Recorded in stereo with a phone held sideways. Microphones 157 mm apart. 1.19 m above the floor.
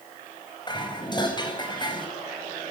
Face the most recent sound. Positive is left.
turn(degrees=30)  # may be behind; listen again after turning